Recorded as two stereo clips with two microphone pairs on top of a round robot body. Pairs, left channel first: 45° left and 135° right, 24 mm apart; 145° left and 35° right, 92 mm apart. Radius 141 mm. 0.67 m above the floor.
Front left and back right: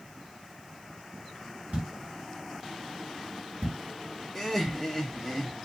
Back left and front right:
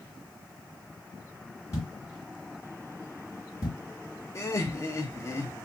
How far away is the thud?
About 1.5 m.